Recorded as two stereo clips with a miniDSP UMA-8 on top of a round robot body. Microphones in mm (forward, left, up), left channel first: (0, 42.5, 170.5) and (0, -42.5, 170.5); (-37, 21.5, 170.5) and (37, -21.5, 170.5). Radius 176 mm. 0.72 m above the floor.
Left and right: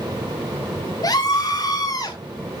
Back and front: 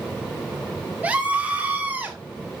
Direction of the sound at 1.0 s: 40° left.